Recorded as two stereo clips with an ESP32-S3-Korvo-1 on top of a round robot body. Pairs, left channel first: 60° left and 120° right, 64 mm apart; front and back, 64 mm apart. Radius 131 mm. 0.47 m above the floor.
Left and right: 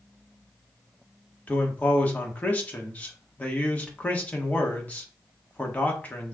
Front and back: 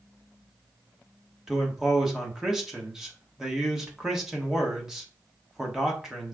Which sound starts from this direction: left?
A man speaking, at 1.5 s.